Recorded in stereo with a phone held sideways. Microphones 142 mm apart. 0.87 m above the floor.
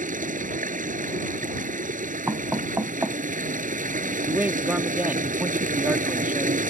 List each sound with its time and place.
0.0 s running water: 65° right (ahead or behind)
2.3 s knocking: 20° right (ahead or behind)
4.3 s a man speaking: 10° right (ahead or behind)